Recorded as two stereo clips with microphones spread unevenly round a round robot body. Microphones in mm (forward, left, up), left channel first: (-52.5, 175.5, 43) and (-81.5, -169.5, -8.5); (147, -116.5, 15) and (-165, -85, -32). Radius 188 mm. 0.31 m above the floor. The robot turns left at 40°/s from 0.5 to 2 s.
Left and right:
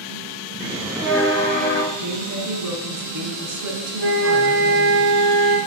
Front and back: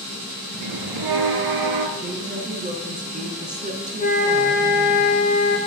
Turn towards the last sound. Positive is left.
turn(degrees=-65)